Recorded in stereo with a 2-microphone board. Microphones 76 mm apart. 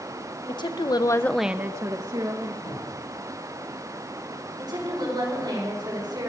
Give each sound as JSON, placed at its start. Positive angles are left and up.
{"t": 0.5, "sound": "a woman speaking", "side_deg": 75, "distance_m": 1.4}
{"t": 2.6, "sound": "a cupboard door", "side_deg": 70, "distance_m": 9.0}
{"t": 4.6, "sound": "a woman speaking", "side_deg": -70, "distance_m": 6.0}